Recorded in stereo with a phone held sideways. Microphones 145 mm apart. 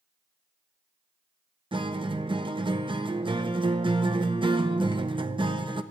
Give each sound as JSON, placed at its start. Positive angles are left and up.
{"t": 1.7, "sound": "a guitar", "side_deg": -35, "distance_m": 0.6}